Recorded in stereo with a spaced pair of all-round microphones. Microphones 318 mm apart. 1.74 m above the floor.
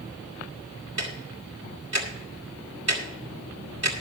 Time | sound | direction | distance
1.0 | ticking | 55° right (ahead or behind) | 2 m